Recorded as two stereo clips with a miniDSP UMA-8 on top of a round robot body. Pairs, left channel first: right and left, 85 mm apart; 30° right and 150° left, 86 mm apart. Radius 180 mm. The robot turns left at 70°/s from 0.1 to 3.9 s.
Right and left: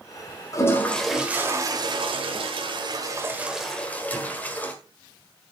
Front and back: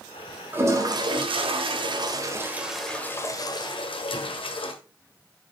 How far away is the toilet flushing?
About 1.6 m.